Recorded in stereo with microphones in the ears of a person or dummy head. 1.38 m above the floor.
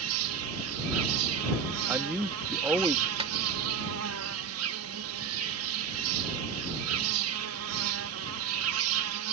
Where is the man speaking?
10° right (ahead or behind).